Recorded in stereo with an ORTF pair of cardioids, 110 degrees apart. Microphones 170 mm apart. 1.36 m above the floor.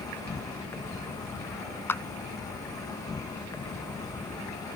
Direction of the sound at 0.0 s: 20° left.